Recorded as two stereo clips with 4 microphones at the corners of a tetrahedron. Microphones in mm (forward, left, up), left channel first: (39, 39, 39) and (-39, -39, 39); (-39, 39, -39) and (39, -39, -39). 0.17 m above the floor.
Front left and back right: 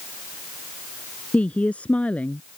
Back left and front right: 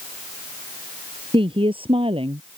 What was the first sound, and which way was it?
A woman speaking, 30° right.